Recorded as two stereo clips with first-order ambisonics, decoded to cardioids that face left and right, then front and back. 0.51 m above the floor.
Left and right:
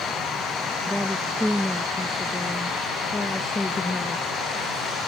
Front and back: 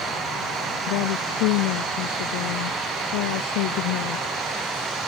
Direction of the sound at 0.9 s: Straight ahead.